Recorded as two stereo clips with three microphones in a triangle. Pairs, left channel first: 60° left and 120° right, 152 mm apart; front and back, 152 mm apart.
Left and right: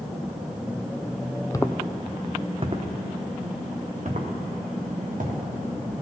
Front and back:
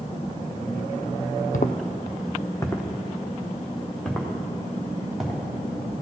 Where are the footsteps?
5° right, 0.5 m; by 5.4 s 90° right, 3 m.